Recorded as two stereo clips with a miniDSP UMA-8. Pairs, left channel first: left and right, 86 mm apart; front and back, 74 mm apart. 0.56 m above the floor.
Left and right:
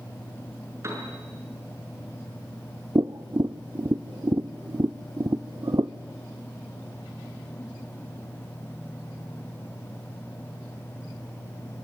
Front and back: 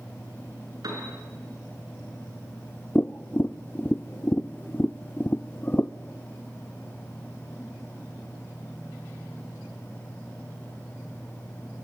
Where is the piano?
145° right, 6 m.